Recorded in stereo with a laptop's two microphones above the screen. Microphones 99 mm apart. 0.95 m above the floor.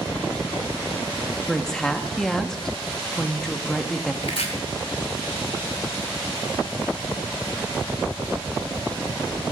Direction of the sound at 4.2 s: 85° left.